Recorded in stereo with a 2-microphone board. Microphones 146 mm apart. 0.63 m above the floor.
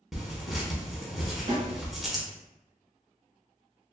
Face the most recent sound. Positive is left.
turn(degrees=-60)  # may be behind; listen again after turning